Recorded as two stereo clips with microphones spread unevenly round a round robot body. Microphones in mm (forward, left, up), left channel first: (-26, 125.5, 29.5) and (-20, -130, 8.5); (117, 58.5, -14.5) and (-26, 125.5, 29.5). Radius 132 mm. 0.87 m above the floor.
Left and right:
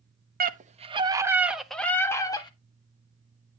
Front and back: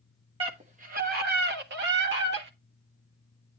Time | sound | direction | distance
0.4 | a scream | 135° right | 1.3 m